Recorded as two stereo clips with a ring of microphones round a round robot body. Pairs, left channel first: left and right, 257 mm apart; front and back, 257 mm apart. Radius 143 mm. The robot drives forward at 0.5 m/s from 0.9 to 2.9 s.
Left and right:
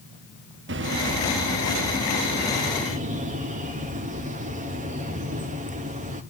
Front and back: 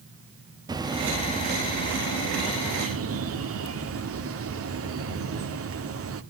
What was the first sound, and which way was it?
A bird, 110° right.